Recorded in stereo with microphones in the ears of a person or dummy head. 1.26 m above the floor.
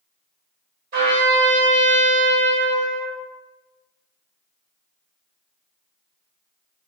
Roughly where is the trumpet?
Right.